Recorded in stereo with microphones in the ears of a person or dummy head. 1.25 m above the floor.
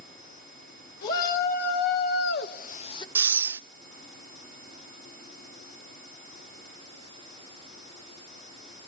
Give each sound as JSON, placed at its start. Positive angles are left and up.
{"t": 1.0, "sound": "a shout", "side_deg": 45, "distance_m": 1.6}
{"t": 3.1, "sound": "breathing", "side_deg": -10, "distance_m": 0.6}